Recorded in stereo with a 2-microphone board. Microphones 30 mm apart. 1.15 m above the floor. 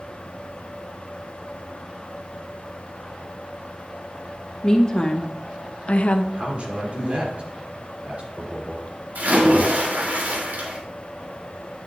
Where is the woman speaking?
25° left (ahead or behind), 1.5 m; by 6.2 s 45° left (ahead or behind), 0.7 m.